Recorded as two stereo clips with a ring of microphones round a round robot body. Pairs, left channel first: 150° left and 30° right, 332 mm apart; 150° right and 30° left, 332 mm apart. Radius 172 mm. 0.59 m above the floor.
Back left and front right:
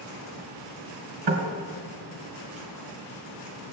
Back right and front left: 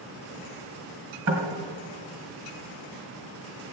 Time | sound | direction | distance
1.3 | knocking | 10° right | 2.5 m